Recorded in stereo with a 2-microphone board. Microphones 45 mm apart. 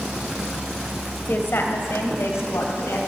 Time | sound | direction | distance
1.3 | a woman speaking | 50° left (ahead or behind) | 1.9 m